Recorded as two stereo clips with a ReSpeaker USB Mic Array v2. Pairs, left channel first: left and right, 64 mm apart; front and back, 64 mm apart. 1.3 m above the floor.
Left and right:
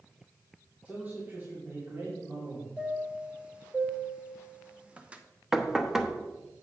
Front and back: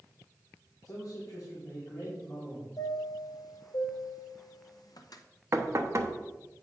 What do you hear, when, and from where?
0.8 s a man speaking: 25° right, 2 m; by 2.7 s 40° right, 3 m
2.8 s a chime: 15° right, 0.7 m
5.5 s knocking: 170° right, 0.7 m